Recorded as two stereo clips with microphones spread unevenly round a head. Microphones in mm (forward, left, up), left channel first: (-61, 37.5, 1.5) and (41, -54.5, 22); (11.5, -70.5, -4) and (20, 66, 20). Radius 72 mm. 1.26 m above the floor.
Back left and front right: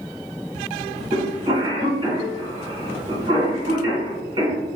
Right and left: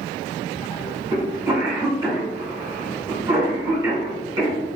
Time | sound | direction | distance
1.1 | a cough | 25° left | 1.6 m